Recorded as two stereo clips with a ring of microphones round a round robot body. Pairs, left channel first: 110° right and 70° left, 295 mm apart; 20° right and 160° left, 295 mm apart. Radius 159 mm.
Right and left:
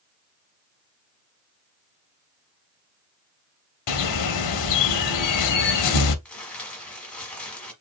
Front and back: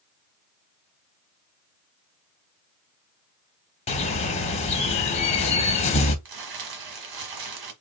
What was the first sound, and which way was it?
A bird, 90° right.